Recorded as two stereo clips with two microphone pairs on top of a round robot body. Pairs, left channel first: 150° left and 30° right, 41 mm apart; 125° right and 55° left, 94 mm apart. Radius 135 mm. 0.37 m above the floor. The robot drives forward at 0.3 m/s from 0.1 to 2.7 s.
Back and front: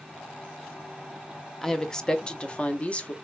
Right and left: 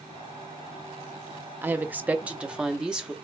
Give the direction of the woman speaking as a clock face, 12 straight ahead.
9 o'clock.